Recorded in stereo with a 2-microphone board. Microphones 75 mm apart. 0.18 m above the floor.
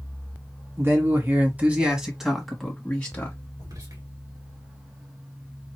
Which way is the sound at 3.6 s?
60° right (ahead or behind).